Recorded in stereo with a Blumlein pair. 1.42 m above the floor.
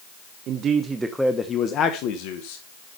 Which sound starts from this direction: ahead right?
A man speaking, at 0.5 s.